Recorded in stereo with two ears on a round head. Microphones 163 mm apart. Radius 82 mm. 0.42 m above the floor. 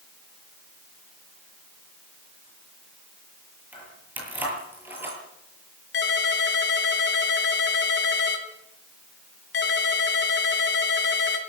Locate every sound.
3.7 s keys jangling: 10° right (ahead or behind), 8.5 m
5.9 s a ringtone: 70° left (ahead or behind), 4 m